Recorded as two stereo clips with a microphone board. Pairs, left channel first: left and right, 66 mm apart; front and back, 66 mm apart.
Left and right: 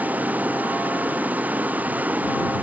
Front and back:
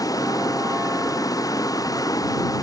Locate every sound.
0.0 s running water: 25° right